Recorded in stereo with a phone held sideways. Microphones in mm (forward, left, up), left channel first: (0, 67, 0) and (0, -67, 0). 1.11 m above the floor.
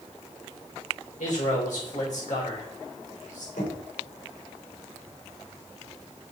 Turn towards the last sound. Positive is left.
turn(degrees=85)